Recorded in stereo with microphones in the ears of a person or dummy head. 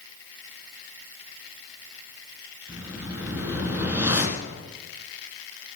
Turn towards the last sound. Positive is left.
turn(degrees=-15)  # may be behind; listen again after turning